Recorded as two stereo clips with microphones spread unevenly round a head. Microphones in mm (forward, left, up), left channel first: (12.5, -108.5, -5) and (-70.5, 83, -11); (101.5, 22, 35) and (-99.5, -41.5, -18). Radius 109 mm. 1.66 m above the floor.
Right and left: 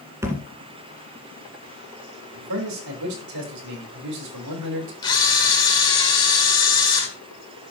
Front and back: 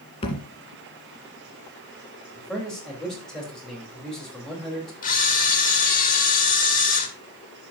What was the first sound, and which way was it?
A thud, 40° left.